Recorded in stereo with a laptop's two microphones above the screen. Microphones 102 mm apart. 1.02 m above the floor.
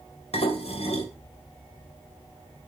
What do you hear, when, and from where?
0.3 s dishes clattering: 80° left, 2.5 m